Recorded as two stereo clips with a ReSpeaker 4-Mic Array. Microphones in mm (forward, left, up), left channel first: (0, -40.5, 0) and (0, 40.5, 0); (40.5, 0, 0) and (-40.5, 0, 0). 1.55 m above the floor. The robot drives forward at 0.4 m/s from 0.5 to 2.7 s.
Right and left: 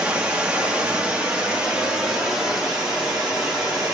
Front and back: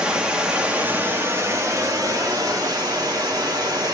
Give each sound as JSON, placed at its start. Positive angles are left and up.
{"t": 0.0, "sound": "running water", "azimuth_deg": 130, "distance_m": 1.0}